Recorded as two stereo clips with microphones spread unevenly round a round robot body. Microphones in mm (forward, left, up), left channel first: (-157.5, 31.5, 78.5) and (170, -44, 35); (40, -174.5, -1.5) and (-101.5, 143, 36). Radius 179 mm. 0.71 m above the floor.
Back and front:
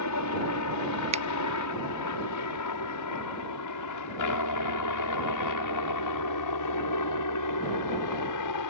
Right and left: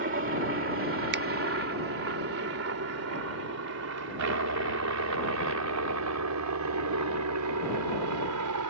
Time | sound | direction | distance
0.0 | a helicopter | 160° left | ?
1.1 | a finger snap | 50° left | ?